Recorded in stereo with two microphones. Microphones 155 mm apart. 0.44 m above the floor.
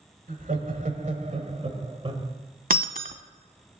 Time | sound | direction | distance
0.3 | laughter | 60° right (ahead or behind) | 1.9 m
2.7 | breaking glass | 65° right (ahead or behind) | 0.7 m